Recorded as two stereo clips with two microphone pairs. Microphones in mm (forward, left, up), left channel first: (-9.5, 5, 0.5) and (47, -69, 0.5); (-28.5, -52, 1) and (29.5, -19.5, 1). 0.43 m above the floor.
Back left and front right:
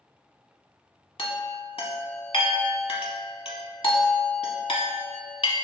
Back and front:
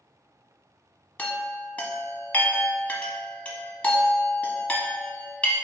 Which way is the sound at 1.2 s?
140° left.